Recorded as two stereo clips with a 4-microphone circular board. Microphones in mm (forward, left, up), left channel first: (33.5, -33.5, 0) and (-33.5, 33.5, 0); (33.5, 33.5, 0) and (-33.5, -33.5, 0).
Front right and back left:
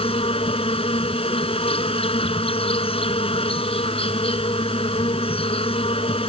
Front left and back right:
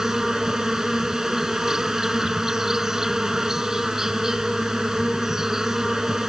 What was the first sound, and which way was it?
An insect, 50° right.